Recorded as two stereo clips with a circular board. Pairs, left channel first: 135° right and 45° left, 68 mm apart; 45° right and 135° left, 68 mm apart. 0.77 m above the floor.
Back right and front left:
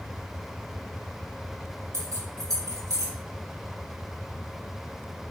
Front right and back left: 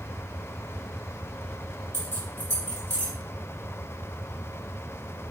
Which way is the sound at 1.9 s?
20° left.